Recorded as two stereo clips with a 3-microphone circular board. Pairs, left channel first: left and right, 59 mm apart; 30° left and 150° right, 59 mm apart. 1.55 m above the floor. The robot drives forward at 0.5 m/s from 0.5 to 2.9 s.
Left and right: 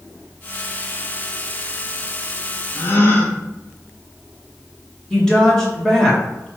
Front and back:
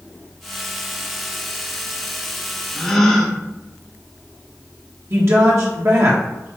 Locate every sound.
2.8 s a gasp: 105° left, 0.8 m; by 3.4 s 110° left, 0.8 m
5.1 s a woman speaking: 170° left, 1.7 m